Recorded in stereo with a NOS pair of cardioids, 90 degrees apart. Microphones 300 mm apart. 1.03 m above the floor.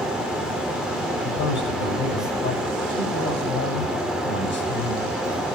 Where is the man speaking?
40° left, 6.5 m.